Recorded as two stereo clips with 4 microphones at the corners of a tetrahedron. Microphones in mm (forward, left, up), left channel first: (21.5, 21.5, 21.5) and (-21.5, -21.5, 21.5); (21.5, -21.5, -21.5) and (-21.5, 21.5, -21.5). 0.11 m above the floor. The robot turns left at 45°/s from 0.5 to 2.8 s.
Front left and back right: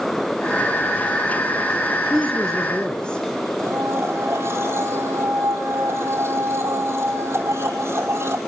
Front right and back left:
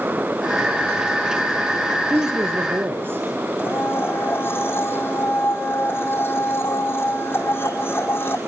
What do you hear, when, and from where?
2.1 s a woman speaking: 145° left, 2 m; by 3.2 s 110° left, 2 m
3.6 s a blender: 95° right, 5 m